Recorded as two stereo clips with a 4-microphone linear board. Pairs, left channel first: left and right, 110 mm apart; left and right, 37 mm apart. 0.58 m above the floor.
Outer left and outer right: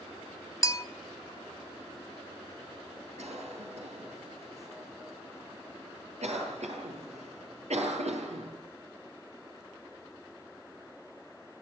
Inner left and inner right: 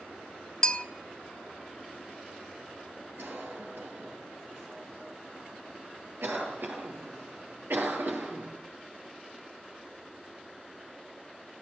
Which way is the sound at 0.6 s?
25° left (ahead or behind).